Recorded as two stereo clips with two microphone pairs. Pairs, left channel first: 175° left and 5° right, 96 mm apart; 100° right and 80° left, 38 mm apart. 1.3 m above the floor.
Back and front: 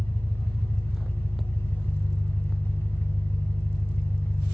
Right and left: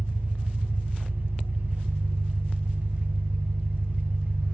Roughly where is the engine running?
Behind left.